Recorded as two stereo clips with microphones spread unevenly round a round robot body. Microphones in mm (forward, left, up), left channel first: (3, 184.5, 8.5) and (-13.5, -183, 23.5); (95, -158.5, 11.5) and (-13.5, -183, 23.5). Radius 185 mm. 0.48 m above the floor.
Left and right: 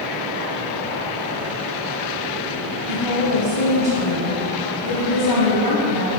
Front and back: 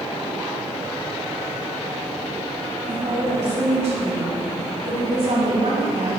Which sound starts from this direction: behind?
A woman speaking, at 2.9 s.